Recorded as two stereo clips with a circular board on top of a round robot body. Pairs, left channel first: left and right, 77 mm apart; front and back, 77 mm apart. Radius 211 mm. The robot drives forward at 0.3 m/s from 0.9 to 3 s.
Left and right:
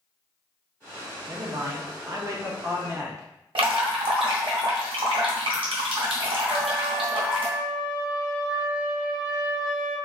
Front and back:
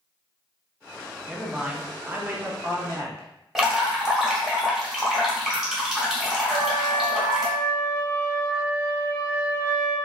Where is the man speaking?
95° right, 0.9 m; by 3.3 s 135° right, 1.1 m.